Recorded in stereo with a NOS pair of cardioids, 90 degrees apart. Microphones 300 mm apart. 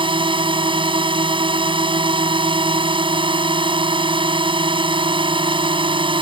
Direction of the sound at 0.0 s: 15° right.